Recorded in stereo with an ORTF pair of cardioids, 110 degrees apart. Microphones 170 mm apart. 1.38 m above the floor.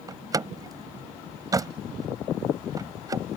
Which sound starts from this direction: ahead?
A door slam, at 0.1 s.